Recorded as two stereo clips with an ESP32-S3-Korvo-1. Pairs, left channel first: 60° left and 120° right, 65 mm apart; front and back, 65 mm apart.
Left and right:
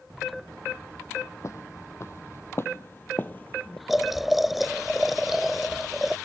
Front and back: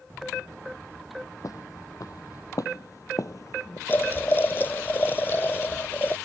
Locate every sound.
1.4 s footsteps: 25° left; by 3.8 s 5° right
3.9 s boiling: 35° right